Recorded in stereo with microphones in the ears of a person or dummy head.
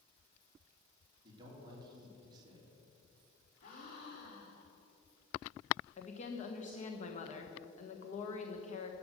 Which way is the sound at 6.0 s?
40° left (ahead or behind).